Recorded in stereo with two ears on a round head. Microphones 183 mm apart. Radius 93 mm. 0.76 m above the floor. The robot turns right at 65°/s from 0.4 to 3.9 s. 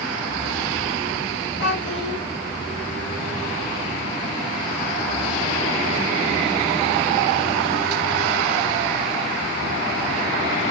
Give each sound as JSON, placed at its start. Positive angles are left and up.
{"t": 1.6, "sound": "a child speaking", "azimuth_deg": 125, "distance_m": 3.5}